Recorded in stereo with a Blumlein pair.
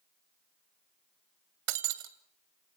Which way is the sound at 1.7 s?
45° right.